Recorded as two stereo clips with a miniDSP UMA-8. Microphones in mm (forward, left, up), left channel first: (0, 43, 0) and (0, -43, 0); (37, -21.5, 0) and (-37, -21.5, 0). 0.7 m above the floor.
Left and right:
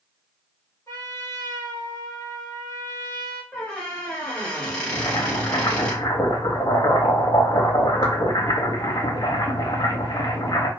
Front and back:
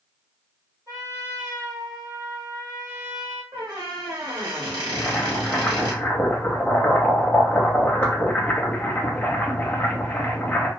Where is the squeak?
170° left, 1.1 m.